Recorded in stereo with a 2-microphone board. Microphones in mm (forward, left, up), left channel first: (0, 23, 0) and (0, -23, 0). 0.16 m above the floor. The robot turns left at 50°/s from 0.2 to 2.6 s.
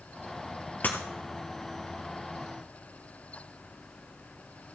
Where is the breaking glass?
45° left (ahead or behind), 2 m; by 1.0 s 40° left (ahead or behind), 2 m.